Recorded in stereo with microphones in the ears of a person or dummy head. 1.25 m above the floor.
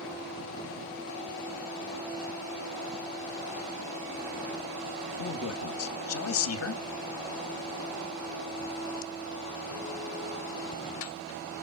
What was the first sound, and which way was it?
A man speaking, 70° left (ahead or behind).